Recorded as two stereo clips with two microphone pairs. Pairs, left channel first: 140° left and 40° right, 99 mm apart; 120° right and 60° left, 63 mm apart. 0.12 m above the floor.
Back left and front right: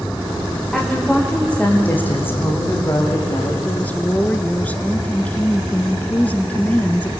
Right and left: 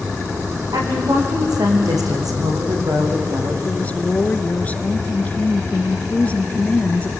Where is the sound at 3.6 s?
160° right, 1.3 m.